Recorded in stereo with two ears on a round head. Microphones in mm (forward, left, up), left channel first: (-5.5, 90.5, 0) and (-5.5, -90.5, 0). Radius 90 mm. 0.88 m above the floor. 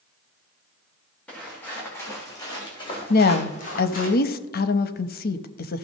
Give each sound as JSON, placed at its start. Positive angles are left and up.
{"t": 1.3, "sound": "footsteps", "side_deg": 5, "distance_m": 4.0}
{"t": 3.1, "sound": "a woman speaking", "side_deg": 45, "distance_m": 0.7}